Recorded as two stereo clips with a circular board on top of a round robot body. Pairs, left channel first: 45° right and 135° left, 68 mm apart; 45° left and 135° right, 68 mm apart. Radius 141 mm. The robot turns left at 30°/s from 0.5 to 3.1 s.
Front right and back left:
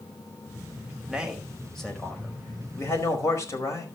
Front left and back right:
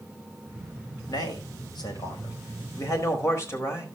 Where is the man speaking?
60° left, 4.5 m; by 3.9 s straight ahead, 4.5 m.